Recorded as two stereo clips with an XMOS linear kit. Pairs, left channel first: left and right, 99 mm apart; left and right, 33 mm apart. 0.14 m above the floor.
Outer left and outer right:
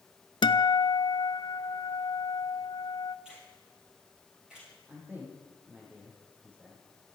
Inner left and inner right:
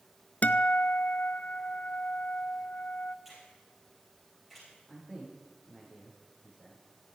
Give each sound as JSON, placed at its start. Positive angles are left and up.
{"t": 0.4, "sound": "a guitar", "side_deg": 55, "distance_m": 0.5}
{"t": 3.2, "sound": "a finger snap", "side_deg": -10, "distance_m": 9.0}
{"t": 4.9, "sound": "a man speaking", "side_deg": -15, "distance_m": 7.5}